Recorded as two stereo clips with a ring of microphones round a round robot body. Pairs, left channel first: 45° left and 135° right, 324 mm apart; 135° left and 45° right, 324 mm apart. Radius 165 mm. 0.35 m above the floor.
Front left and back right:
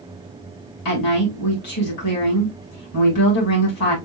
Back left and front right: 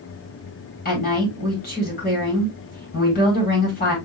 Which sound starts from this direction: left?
A woman speaking, at 0.8 s.